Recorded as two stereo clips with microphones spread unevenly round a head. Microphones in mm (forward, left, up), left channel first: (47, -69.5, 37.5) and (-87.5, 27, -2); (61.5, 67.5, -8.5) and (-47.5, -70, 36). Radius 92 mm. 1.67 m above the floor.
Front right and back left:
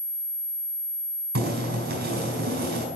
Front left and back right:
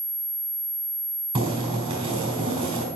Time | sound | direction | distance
1.4 | boiling | 175° left | 4 m